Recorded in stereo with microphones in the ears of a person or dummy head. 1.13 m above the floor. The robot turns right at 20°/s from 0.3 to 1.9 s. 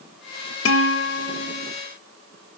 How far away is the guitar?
About 1.6 m.